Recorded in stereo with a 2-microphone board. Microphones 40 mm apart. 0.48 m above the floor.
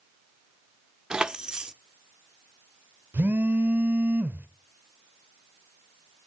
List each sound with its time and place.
1.1 s keys jangling: 20° right (ahead or behind), 0.5 m
3.1 s a phone buzzing: 60° right (ahead or behind), 0.8 m